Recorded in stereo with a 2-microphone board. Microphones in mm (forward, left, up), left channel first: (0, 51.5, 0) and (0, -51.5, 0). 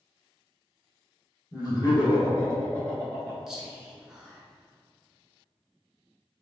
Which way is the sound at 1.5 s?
35° left (ahead or behind).